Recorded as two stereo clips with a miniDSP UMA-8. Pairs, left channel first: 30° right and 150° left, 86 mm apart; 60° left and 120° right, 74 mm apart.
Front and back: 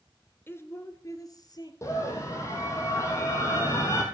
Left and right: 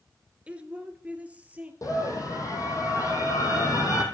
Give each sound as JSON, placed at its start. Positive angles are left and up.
{"t": 0.5, "sound": "a woman speaking", "azimuth_deg": -65, "distance_m": 1.2}
{"t": 1.8, "sound": "a scream", "azimuth_deg": 25, "distance_m": 3.5}